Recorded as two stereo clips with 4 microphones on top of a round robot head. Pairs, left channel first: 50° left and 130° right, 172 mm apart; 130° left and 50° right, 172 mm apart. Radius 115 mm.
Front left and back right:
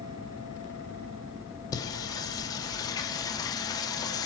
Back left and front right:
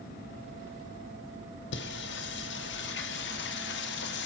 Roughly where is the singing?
Behind left.